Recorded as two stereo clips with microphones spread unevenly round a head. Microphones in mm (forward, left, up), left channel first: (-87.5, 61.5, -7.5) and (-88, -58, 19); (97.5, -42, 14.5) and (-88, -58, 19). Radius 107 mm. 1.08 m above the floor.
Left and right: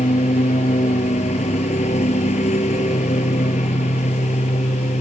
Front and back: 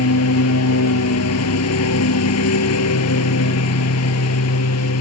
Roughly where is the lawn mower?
Ahead left.